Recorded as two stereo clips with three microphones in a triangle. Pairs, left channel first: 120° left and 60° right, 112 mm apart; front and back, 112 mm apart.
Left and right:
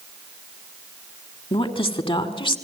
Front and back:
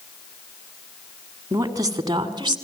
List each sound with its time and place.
1.5 s a woman speaking: 125° left, 2.5 m; by 2.6 s 140° left, 2.5 m